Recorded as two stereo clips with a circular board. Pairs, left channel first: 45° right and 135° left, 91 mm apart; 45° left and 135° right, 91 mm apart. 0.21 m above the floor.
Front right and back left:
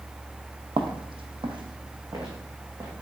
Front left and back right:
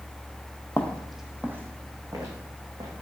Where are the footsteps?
115° left, 0.6 m; by 2.9 s 170° right, 1.3 m.